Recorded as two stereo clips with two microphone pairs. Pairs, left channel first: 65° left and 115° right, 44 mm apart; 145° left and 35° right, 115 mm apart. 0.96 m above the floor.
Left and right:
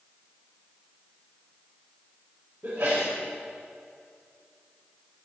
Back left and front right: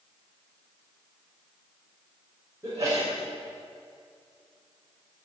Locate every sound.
2.6 s a sneeze: 95° right, 5 m